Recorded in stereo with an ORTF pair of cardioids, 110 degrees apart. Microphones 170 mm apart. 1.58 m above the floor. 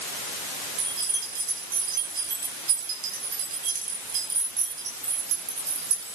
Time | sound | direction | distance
0.8 | keys jangling | 65° right | 6 m